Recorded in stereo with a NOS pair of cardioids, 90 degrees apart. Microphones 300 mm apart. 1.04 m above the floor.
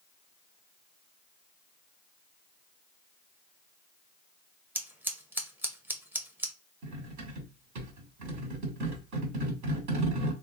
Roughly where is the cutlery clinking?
Right.